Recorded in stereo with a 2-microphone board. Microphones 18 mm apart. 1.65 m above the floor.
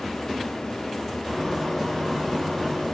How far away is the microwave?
About 1.2 m.